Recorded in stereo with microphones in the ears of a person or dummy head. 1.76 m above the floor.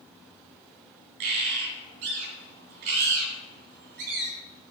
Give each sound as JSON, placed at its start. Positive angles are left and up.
{"t": 1.2, "sound": "a bird", "side_deg": -50, "distance_m": 2.5}